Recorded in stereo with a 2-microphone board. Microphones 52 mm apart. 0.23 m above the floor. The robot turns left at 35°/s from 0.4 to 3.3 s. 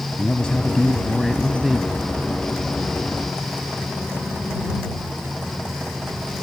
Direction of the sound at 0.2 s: 30° left.